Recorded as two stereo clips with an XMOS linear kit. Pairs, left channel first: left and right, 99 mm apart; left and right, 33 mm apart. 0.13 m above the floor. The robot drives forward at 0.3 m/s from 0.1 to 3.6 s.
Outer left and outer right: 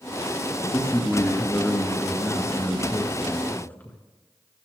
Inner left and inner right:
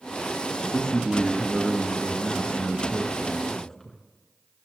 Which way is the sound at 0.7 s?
20° left (ahead or behind).